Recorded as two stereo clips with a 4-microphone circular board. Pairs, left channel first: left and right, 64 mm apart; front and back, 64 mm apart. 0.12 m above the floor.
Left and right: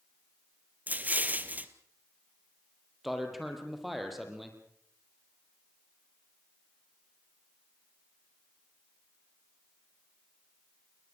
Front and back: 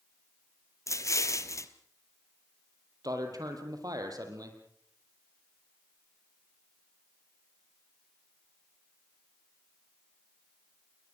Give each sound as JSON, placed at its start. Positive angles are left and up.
{"t": 0.9, "sound": "an explosion", "azimuth_deg": -30, "distance_m": 1.5}
{"t": 3.0, "sound": "a man speaking", "azimuth_deg": 180, "distance_m": 4.5}